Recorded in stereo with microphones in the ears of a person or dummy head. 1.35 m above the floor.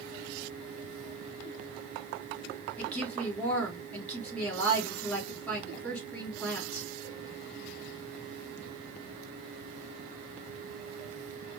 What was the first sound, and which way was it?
A woman speaking, 10° left (ahead or behind).